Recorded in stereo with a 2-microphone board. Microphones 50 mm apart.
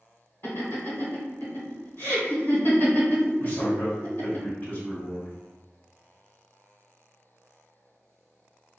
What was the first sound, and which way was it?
Laughter, 50° left (ahead or behind).